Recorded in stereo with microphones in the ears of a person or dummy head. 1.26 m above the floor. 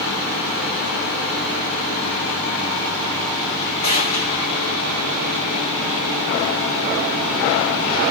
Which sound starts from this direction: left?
A gunshot, at 3.8 s.